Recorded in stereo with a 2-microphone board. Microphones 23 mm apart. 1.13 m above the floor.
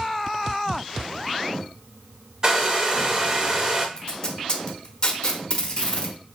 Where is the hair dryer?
25° right (ahead or behind), 0.7 m.